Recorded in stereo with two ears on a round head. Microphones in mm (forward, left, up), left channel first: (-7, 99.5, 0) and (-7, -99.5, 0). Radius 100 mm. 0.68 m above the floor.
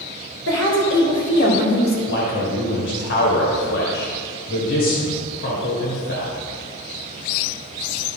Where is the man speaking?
60° left (ahead or behind), 2.5 m.